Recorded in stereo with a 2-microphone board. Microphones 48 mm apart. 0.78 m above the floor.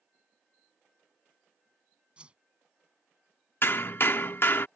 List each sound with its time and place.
2.2 s a whoosh: 20° right (ahead or behind)
3.6 s hammering: 50° left (ahead or behind)